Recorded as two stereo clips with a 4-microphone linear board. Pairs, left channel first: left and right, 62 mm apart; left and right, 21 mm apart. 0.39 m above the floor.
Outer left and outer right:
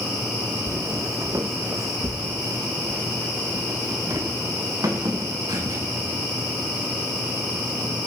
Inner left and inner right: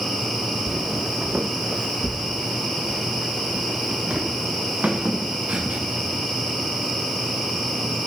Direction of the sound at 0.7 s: 45° right (ahead or behind).